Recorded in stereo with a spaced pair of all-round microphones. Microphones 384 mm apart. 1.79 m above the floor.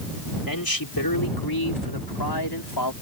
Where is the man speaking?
60° left (ahead or behind); by 2.9 s 85° left.